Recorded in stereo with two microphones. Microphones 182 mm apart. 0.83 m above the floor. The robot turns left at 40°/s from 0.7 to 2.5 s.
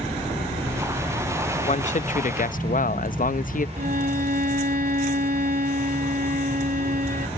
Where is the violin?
55° right (ahead or behind).